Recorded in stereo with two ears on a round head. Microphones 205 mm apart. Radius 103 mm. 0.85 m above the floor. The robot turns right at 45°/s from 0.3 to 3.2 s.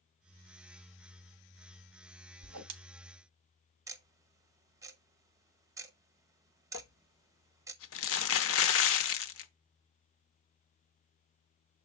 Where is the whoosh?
70° right (ahead or behind), 1.3 m; by 2.7 s 55° right (ahead or behind), 1.3 m.